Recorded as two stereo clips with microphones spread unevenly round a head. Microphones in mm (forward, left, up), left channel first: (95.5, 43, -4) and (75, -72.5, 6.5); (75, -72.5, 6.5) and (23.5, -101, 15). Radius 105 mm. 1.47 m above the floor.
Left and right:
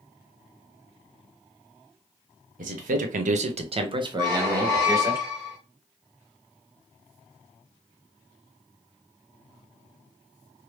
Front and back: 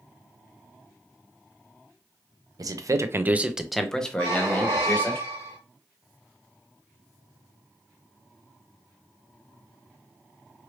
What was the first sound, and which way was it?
A man speaking, 130° right.